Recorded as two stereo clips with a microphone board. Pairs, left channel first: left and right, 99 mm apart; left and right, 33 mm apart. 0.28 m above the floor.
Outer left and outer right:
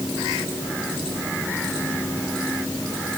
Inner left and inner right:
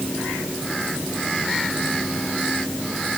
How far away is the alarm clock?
I don't hear an alarm clock.